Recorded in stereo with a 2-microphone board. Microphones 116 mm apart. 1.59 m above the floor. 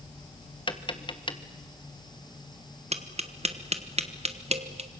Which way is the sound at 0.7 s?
45° left (ahead or behind).